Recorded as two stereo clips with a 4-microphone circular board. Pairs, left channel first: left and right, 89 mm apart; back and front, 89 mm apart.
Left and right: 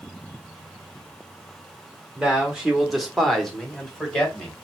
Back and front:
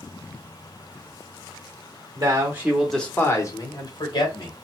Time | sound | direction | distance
2.1 | a man speaking | 10° right | 0.9 m